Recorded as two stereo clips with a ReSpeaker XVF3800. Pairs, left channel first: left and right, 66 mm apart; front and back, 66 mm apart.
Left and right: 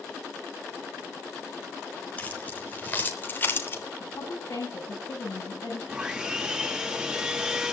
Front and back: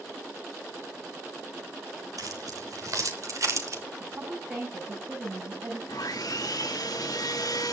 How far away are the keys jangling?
About 4 m.